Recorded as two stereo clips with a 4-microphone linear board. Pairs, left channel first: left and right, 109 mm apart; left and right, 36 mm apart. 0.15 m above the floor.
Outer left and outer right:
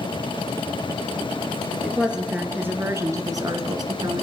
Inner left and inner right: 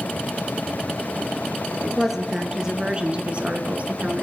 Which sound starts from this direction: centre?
A woman speaking, at 1.8 s.